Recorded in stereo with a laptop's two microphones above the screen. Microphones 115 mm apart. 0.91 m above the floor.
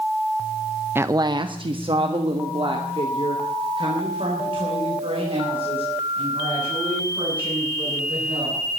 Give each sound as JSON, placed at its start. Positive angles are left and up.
{"t": 0.9, "sound": "a woman speaking", "side_deg": -20, "distance_m": 0.6}